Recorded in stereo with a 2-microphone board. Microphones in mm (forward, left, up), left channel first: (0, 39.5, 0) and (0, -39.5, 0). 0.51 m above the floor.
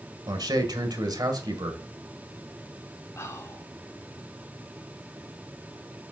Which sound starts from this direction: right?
A man speaking, at 0.3 s.